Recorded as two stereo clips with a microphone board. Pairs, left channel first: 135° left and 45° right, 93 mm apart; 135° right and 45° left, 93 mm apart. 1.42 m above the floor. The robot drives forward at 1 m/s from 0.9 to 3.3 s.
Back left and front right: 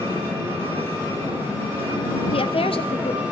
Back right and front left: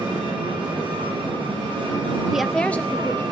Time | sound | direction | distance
0.0 | an engine running | 20° left | 9.5 m
2.3 | a woman speaking | 130° left | 0.6 m